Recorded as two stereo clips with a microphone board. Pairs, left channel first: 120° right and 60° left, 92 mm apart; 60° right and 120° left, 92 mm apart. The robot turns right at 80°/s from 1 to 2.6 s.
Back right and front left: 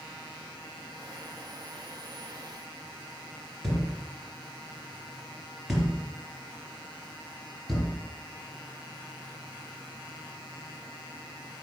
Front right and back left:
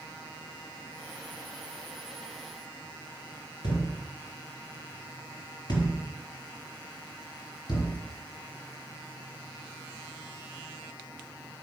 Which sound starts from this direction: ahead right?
A thud, at 3.6 s.